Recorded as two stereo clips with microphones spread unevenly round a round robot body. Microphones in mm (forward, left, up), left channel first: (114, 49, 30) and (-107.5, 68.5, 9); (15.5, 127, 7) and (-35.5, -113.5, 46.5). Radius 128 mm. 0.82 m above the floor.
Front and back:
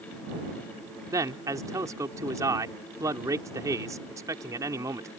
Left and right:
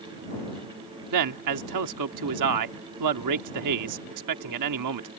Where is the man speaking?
110° right.